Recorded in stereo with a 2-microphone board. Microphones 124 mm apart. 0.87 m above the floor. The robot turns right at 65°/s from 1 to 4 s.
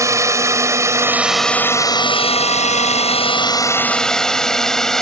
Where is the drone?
25° right (ahead or behind); by 5.0 s 5° left (ahead or behind).